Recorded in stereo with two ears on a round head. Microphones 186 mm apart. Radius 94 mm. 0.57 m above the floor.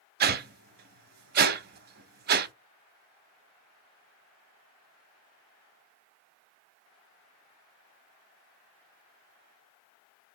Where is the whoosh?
45° right (ahead or behind), 0.5 m.